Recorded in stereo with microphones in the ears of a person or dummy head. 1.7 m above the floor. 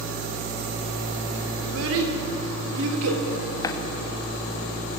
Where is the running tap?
20° left (ahead or behind), 2 m.